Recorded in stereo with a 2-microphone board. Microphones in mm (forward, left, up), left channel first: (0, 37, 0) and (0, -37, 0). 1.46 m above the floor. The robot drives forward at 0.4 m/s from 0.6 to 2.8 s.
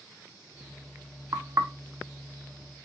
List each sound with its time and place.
1.3 s knocking: 45° right (ahead or behind), 0.8 m; by 1.7 s 40° right (ahead or behind), 0.9 m